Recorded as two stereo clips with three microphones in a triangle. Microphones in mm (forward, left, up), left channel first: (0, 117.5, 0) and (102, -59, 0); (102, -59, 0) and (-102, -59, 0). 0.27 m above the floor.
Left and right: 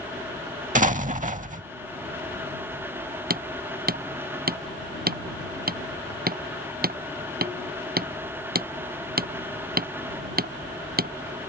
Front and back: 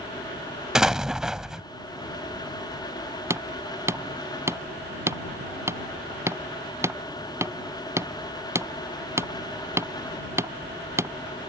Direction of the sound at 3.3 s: 105° right.